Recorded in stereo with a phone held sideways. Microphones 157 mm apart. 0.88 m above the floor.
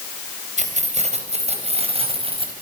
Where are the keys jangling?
50° right (ahead or behind), 4 m; by 2.5 s 35° right (ahead or behind), 4.5 m.